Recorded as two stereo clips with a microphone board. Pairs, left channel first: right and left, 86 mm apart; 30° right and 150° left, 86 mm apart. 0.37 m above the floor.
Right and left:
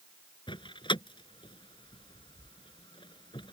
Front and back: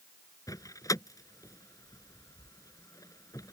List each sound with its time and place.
0.5 s a door slam: 75° right